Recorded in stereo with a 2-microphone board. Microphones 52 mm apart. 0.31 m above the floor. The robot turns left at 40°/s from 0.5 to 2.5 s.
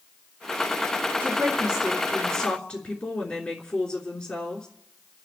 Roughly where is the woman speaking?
Behind right.